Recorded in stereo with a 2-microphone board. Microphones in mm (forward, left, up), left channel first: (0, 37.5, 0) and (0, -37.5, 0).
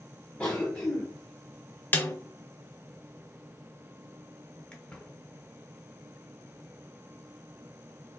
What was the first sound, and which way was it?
A cough, 15° left (ahead or behind).